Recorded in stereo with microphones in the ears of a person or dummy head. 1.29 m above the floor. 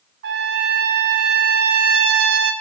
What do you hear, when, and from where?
0.2 s a trumpet: 55° right (ahead or behind), 1.3 m